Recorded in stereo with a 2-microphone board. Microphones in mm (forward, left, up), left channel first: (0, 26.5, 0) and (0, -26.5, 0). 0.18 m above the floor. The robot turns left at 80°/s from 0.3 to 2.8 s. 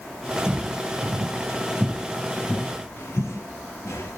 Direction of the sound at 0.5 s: 5° right (ahead or behind).